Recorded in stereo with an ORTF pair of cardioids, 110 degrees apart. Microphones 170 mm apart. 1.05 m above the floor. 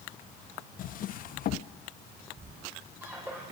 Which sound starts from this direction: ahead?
A squeak, at 2.4 s.